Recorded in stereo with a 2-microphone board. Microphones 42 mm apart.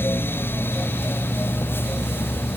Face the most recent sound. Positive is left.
No sound to turn to.